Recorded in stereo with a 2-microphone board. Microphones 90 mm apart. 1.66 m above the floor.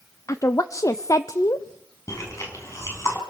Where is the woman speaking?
40° left (ahead or behind), 0.6 m.